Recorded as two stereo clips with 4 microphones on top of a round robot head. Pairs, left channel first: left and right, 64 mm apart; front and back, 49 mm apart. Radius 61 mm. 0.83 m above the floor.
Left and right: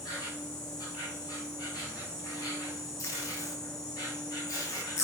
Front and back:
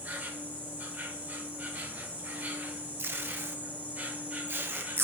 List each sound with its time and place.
0.0 s an insect: 125° left, 1.6 m
3.0 s tape being pulled: 140° left, 0.7 m